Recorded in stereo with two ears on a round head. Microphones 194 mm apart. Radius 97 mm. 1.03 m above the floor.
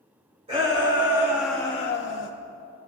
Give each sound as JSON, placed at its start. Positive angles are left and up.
{"t": 0.5, "sound": "a shout", "side_deg": -25, "distance_m": 2.0}